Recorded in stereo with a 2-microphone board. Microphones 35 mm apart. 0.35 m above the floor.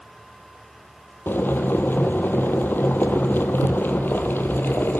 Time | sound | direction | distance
1.3 | boiling | 85° left | 2.0 m